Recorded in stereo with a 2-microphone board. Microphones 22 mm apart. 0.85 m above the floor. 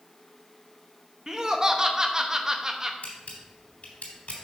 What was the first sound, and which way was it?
Laughter, 30° right (ahead or behind).